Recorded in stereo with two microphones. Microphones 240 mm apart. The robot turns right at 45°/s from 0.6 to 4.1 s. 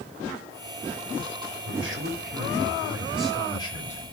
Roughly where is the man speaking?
Right.